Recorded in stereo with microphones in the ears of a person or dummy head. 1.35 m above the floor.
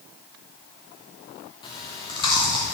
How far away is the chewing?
About 0.8 m.